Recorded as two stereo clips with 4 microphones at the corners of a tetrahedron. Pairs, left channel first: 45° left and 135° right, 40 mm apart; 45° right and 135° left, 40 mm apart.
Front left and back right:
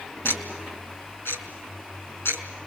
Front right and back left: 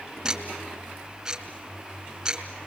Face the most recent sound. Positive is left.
turn(degrees=55)